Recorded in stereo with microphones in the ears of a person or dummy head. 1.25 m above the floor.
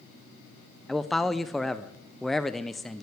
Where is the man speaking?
5° left (ahead or behind), 0.5 m.